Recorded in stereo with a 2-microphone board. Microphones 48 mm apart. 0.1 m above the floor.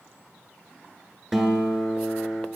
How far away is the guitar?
About 1.0 m.